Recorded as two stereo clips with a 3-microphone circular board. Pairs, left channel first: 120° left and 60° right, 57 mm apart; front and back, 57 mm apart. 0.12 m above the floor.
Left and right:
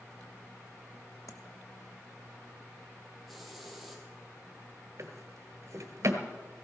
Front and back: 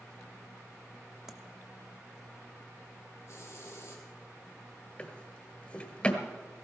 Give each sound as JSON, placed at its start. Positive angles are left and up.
{"t": 1.3, "sound": "tapping", "azimuth_deg": 100, "distance_m": 1.1}
{"t": 3.3, "sound": "a hiss", "azimuth_deg": 30, "distance_m": 2.5}
{"t": 5.0, "sound": "a drawer", "azimuth_deg": -65, "distance_m": 1.5}